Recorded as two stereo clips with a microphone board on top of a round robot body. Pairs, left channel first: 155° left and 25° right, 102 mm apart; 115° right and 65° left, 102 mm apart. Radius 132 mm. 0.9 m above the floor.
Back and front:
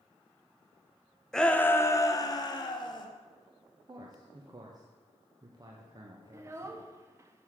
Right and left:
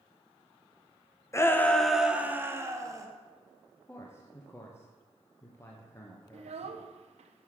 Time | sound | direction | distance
1.3 | a shout | 125° right | 0.8 m
3.9 | a man speaking | 55° right | 1.1 m
6.3 | a child speaking | 40° left | 0.6 m